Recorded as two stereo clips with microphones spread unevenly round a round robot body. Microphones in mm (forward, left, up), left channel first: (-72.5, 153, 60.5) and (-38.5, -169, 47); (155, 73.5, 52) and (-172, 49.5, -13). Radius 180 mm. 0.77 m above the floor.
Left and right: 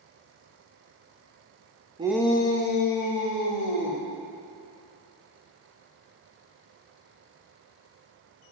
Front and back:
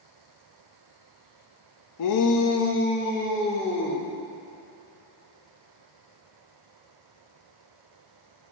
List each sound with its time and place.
2.0 s a shout: 20° right, 0.7 m; by 4.0 s 80° left, 2.5 m